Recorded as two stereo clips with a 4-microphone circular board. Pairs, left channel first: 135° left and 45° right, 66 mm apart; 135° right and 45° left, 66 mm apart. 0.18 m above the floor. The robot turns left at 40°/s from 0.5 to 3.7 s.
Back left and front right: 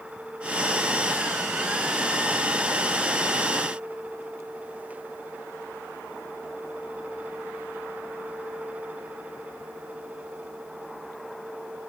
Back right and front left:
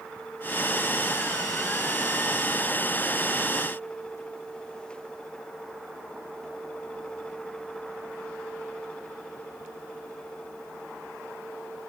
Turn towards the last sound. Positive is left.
No sound to turn to.